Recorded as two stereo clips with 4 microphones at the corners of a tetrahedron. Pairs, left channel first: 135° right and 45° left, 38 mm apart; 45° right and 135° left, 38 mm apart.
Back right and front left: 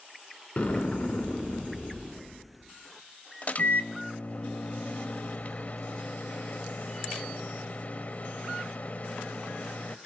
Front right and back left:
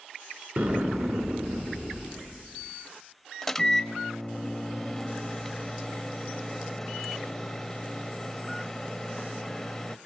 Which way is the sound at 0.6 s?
170° left.